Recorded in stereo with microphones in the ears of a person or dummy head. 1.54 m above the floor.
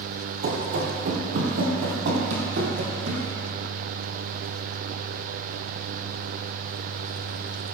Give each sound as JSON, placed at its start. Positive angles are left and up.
{"t": 0.4, "sound": "running footsteps", "side_deg": -50, "distance_m": 2.0}